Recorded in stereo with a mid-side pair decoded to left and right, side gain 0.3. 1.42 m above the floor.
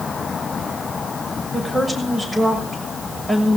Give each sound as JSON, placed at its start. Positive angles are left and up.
{"t": 1.5, "sound": "a woman speaking", "azimuth_deg": -30, "distance_m": 6.5}